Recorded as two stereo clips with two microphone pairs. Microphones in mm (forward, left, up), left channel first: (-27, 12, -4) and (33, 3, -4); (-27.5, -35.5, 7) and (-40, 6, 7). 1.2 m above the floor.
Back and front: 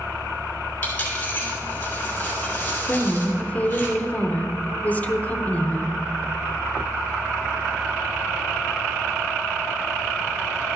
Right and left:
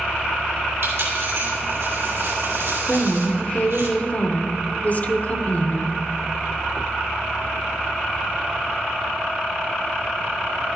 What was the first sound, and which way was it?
A dropped coin, 110° left.